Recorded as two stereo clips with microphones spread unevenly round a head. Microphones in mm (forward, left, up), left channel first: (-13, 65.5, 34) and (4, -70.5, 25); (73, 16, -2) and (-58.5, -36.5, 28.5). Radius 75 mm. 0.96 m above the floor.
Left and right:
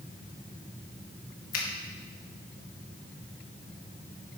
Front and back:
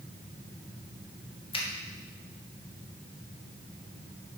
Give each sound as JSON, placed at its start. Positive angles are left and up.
{"t": 1.5, "sound": "a finger snap", "azimuth_deg": 75, "distance_m": 1.4}